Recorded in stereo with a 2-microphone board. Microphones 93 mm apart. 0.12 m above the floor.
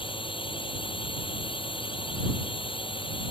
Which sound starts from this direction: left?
A drone, at 0.0 s.